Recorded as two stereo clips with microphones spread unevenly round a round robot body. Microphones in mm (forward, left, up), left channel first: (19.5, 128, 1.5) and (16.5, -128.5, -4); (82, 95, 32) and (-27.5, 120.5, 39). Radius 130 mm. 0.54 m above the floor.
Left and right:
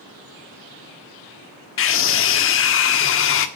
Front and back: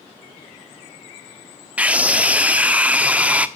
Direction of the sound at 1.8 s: 90° left.